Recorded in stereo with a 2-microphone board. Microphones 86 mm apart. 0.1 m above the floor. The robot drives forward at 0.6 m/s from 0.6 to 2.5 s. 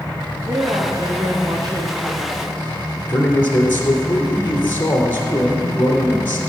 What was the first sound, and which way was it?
A woman speaking, 45° right (ahead or behind).